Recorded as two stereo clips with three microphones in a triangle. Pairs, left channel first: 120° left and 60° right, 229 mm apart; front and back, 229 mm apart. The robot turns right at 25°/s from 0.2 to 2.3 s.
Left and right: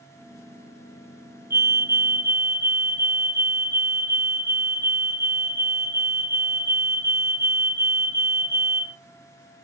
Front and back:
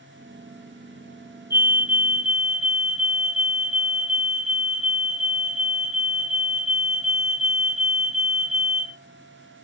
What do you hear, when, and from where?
1.5 s a fire alarm: 120° right, 2 m; by 9.0 s 100° right, 2 m